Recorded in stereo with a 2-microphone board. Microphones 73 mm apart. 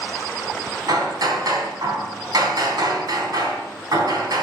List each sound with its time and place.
0.9 s hammering: 65° right (ahead or behind), 3.5 m